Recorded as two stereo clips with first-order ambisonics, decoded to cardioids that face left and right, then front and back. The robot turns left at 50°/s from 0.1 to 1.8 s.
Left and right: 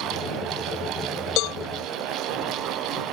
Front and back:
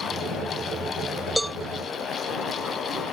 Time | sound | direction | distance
1.4 | a cowbell | 90° left | ?